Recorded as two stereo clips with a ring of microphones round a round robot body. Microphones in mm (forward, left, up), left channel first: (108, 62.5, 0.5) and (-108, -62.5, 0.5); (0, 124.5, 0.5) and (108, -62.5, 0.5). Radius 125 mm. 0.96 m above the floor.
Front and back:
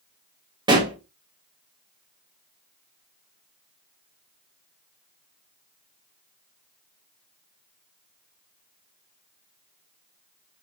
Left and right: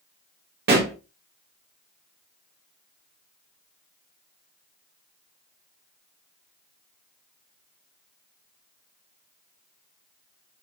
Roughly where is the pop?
Right.